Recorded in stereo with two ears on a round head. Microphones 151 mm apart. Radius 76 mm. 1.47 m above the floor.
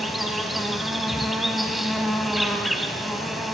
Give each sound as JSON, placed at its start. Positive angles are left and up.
{"t": 0.0, "sound": "an insect", "side_deg": 0, "distance_m": 2.5}